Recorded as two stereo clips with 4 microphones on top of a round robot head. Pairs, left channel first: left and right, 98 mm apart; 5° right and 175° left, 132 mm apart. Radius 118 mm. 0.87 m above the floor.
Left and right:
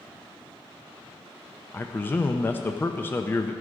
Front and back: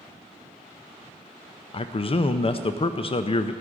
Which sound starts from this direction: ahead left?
A man speaking, at 1.7 s.